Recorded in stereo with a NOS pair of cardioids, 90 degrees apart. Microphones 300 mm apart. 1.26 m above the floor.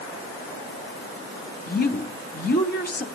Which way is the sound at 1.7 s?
30° left.